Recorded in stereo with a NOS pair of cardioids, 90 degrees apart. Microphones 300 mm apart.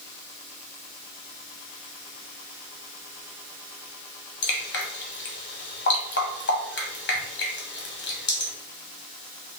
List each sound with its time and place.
4.4 s dripping: 35° left, 1.5 m